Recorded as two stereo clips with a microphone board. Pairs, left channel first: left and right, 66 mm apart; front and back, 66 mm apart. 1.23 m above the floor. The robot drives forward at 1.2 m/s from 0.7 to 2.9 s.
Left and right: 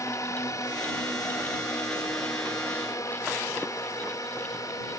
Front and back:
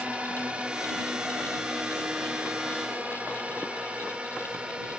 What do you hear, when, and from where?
0.0 s a drone: 110° left; by 5.0 s 105° left